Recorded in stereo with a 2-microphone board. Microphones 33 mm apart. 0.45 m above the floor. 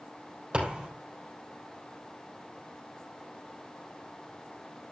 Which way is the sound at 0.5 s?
35° right (ahead or behind).